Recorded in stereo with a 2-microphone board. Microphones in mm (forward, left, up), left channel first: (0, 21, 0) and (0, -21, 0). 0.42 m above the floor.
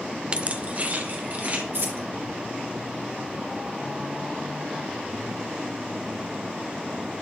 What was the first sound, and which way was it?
Keys jangling, 25° right (ahead or behind).